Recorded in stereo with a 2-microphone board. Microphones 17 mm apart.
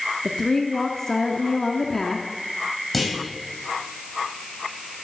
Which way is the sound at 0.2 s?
30° left (ahead or behind).